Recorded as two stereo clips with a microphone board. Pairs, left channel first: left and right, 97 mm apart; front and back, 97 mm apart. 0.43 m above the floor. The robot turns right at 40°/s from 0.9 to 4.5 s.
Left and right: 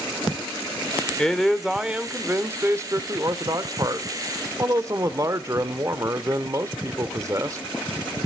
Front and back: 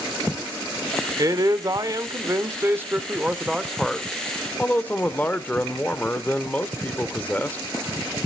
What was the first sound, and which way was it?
A man speaking, 170° left.